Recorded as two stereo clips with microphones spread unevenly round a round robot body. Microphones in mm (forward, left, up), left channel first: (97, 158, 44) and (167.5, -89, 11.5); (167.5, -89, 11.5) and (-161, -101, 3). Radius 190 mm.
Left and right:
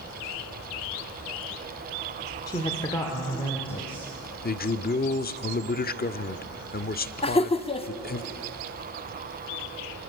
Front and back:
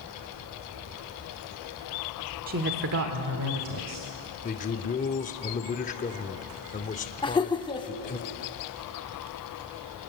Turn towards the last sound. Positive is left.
turn(degrees=55)